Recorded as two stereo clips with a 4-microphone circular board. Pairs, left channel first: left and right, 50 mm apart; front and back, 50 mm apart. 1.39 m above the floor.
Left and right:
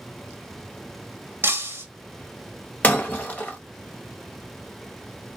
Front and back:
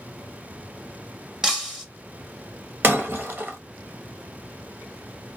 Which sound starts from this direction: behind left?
Breaking glass, at 2.8 s.